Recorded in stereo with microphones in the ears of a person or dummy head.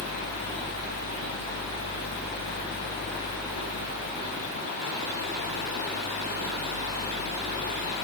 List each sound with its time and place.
Only background noise.